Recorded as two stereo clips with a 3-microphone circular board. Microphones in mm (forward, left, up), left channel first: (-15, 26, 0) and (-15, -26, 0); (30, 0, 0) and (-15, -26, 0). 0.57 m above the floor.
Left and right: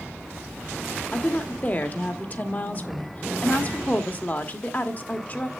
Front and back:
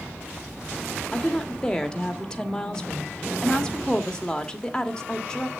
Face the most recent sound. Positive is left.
turn(degrees=95)